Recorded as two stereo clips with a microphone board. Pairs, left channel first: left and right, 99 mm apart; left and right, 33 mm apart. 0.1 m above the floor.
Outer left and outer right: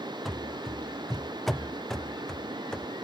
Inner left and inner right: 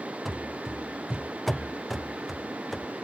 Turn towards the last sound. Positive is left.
turn(degrees=5)  # may be behind; listen again after turning